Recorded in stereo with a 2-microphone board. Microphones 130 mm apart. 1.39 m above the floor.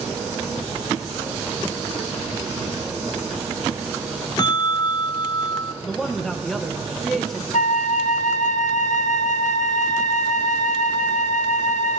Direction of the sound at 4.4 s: 35° left (ahead or behind).